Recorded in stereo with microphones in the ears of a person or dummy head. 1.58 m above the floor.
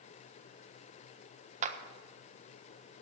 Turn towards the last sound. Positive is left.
turn(degrees=-45)  # may be behind; listen again after turning